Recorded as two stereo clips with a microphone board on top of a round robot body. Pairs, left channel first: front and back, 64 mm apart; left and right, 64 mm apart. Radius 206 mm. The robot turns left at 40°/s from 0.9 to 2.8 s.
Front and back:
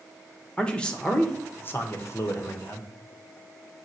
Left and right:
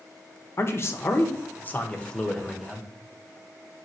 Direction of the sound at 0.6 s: 70° left.